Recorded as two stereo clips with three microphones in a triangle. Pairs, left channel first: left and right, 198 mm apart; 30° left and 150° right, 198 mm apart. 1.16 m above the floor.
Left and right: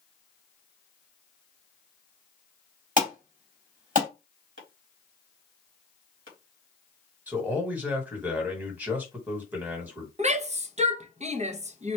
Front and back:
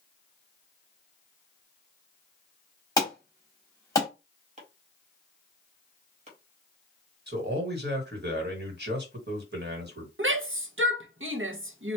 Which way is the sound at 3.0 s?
45° right.